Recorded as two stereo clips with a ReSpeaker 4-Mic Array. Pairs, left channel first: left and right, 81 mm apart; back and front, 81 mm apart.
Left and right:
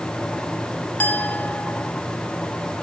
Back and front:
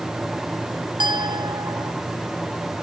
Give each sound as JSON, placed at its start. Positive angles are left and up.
{"t": 1.0, "sound": "a clink", "azimuth_deg": 20}